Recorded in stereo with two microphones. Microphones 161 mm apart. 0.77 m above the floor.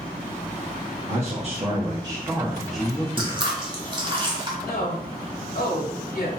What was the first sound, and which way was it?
A man speaking, 45° right (ahead or behind).